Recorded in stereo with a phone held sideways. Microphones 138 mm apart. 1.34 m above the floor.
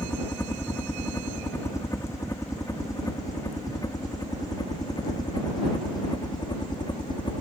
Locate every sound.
0.0 s a helicopter: 15° left (ahead or behind); by 7.4 s 35° left (ahead or behind)